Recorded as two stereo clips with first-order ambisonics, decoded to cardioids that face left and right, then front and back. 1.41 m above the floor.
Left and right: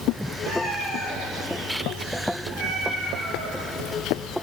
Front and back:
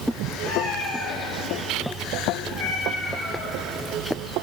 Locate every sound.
0.4 s a cat meowing: 5° right, 4.5 m; by 3.6 s 55° right, 3.5 m